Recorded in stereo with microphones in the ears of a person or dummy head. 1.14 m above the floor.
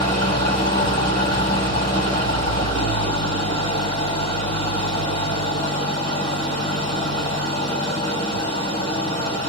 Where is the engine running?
30° left (ahead or behind), 1.9 m.